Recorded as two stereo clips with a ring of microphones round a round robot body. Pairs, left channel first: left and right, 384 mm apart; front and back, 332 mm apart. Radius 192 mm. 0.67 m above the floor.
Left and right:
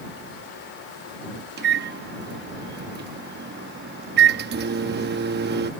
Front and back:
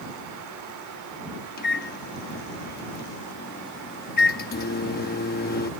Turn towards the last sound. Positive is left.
turn(degrees=-45)